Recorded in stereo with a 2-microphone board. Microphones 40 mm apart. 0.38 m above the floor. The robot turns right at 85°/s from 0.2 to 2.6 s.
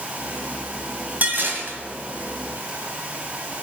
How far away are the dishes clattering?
About 1.9 m.